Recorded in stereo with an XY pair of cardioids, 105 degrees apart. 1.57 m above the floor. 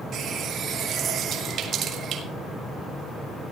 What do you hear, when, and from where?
0.1 s a running tap: 65° right, 2.5 m